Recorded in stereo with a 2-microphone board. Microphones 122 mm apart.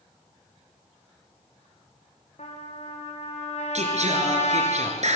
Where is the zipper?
No zipper in this recording.